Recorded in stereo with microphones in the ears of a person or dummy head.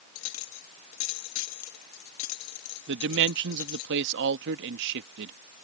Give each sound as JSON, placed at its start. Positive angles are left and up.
{"t": 0.1, "sound": "a clink", "side_deg": 85}
{"t": 2.9, "sound": "a man speaking", "side_deg": -70}